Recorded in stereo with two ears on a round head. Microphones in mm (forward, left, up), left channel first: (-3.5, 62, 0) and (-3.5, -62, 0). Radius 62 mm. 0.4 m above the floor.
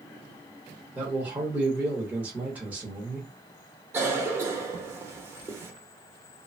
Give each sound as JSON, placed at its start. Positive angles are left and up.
{"t": 0.9, "sound": "a man speaking", "side_deg": -15, "distance_m": 0.8}
{"t": 3.9, "sound": "a cough", "side_deg": -20, "distance_m": 0.8}